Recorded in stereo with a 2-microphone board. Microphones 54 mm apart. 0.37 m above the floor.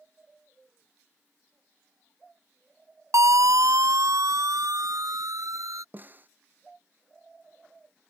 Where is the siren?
70° right (ahead or behind); by 5.8 s 80° right.